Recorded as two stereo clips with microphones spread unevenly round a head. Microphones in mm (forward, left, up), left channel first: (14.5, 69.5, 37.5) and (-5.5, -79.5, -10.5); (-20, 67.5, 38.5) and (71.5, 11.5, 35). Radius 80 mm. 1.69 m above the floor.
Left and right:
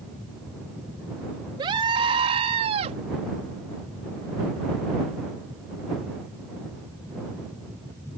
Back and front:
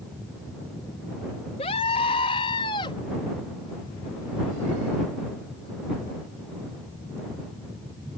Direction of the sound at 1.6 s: 165° right.